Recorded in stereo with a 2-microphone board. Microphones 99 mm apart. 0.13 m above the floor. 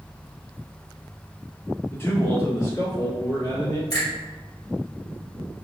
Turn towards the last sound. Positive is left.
turn(degrees=40)  # may be behind; listen again after turning